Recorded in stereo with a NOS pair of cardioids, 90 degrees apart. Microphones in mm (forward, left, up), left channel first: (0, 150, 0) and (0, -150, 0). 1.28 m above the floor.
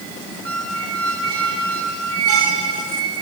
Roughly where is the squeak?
Ahead right.